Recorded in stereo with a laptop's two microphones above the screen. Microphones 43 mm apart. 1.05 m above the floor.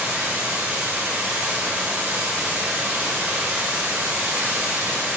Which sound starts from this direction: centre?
Running water, at 0.0 s.